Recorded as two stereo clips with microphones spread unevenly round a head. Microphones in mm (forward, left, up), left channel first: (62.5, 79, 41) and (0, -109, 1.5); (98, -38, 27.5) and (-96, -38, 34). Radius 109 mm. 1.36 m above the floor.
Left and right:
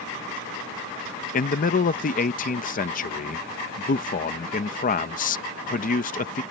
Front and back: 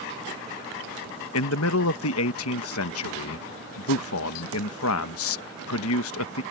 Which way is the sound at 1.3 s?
25° left.